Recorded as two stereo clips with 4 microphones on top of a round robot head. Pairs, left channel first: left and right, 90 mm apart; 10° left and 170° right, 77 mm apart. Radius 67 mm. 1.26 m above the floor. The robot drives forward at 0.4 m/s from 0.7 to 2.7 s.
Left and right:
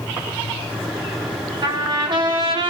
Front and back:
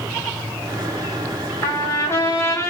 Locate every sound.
1.6 s a trumpet: 50° right, 4 m; by 2.7 s 55° right, 4 m